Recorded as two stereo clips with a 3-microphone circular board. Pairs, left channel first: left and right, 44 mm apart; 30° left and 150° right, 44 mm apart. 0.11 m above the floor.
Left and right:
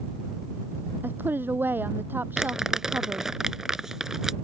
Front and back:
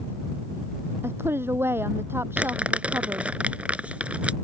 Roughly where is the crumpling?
Behind.